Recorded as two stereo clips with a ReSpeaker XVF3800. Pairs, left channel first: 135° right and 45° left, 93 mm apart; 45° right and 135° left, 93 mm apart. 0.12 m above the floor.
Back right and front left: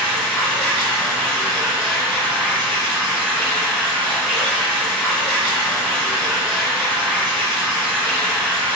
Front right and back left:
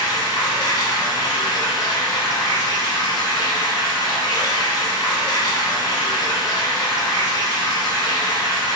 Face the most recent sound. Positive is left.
turn(degrees=-60)